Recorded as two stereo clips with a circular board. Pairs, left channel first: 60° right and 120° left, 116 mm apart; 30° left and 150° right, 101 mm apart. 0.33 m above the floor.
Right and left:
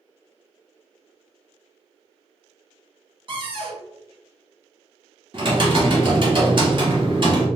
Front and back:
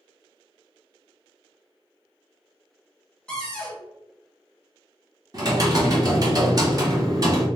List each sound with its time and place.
3.3 s a cupboard door: 110° left, 1.1 m
5.3 s typing on a keyboard: 160° left, 1.0 m